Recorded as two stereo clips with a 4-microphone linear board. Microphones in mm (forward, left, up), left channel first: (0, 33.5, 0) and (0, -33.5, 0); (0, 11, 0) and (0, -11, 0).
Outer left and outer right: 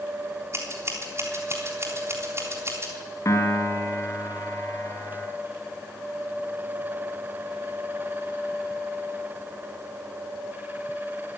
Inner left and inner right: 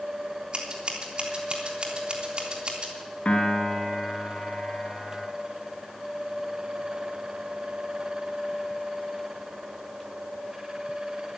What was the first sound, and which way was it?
Scissors, 40° right (ahead or behind).